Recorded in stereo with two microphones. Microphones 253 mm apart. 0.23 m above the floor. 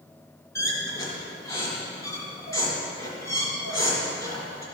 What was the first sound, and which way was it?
A squeak, 10° left (ahead or behind).